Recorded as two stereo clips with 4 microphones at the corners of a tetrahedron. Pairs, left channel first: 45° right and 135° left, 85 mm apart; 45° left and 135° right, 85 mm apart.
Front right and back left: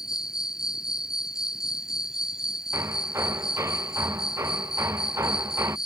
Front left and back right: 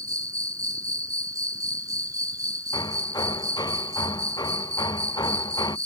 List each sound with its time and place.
0.0 s an insect: 145° right
2.7 s hammering: 80° left